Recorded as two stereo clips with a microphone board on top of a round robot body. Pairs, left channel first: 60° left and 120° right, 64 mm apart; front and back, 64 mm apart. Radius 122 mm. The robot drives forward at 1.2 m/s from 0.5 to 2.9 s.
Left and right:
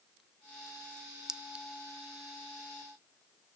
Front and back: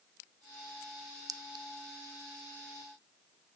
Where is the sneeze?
I don't hear a sneeze.